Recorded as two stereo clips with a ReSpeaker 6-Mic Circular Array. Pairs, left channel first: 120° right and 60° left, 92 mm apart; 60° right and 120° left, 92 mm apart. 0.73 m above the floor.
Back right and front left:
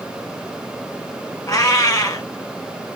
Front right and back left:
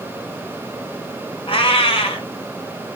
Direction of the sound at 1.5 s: 70° right.